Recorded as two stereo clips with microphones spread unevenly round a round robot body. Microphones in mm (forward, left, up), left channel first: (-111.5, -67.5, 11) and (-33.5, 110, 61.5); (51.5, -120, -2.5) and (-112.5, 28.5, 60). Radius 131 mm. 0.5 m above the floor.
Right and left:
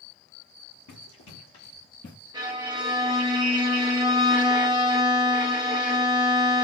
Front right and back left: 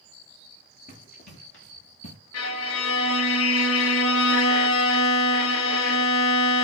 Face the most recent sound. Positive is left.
turn(degrees=-5)